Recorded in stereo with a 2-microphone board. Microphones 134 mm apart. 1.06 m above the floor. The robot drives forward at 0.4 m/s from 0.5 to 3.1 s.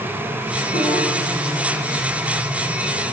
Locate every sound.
0.7 s a piano: 75° left (ahead or behind), 9 m